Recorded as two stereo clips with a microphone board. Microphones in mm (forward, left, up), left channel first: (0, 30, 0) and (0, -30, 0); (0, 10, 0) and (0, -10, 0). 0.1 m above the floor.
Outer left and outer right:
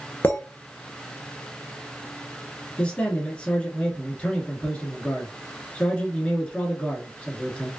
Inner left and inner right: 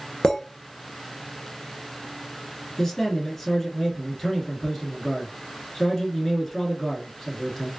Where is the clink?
35° left (ahead or behind), 1.1 m.